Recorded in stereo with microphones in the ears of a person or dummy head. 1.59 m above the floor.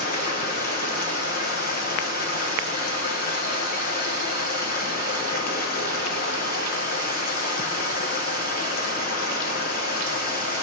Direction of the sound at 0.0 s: 45° left (ahead or behind).